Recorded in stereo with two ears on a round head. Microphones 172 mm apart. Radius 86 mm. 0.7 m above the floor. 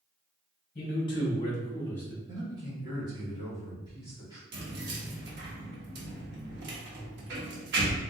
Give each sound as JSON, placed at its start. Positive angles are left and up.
{"t": 0.8, "sound": "a man speaking", "side_deg": 30, "distance_m": 1.0}
{"t": 2.3, "sound": "a man speaking", "side_deg": -25, "distance_m": 1.5}
{"t": 4.5, "sound": "keys jangling", "side_deg": -60, "distance_m": 0.9}